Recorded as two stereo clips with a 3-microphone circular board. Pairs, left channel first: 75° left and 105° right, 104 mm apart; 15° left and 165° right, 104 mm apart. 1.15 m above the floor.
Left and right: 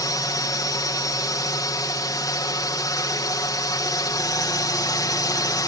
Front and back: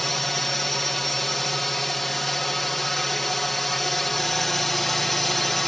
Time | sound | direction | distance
0.0 | a drone | 100° left | ?